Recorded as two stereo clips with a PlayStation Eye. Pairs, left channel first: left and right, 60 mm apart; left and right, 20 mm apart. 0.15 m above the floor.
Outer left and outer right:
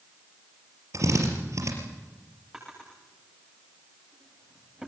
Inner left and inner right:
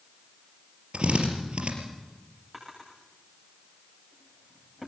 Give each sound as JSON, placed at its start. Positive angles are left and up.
{"t": 0.9, "sound": "a drill", "side_deg": -60, "distance_m": 4.0}
{"t": 2.5, "sound": "a drawer", "side_deg": -10, "distance_m": 9.5}